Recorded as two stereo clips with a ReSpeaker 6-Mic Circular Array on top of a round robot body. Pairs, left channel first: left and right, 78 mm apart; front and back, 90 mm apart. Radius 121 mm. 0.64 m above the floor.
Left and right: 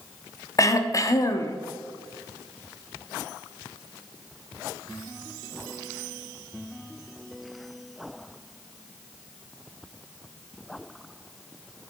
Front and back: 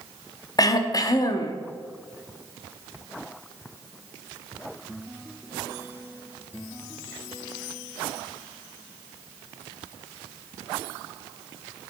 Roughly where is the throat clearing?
Ahead left.